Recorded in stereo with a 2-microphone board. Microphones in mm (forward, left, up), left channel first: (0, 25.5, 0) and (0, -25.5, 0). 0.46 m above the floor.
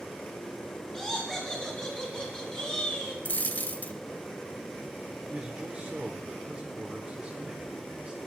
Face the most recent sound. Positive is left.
turn(degrees=-20)  # may be behind; listen again after turning